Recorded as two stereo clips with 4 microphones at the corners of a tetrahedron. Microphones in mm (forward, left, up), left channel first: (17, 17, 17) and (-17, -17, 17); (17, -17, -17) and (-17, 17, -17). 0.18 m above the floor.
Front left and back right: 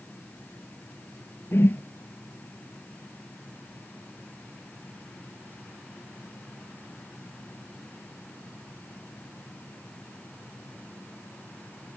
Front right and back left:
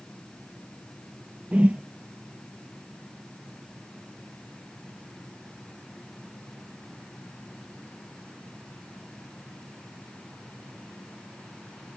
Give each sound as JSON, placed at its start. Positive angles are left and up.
{"t": 1.5, "sound": "a whoosh", "azimuth_deg": 75}